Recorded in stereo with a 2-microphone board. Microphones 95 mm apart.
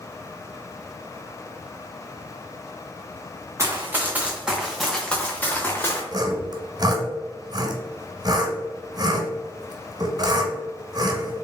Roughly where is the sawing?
Right.